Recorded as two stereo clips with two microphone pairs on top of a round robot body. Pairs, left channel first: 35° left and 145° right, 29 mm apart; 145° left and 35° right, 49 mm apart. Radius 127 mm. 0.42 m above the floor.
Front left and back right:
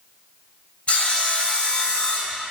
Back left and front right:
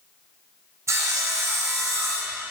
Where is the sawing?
15° right, 0.6 m.